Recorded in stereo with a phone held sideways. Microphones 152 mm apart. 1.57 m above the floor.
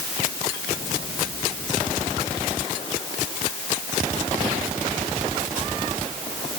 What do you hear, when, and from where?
Only background noise.